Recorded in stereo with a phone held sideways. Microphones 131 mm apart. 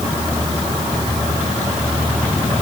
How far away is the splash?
No splash in this recording.